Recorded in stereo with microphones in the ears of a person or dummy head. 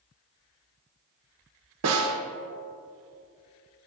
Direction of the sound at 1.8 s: 80° right.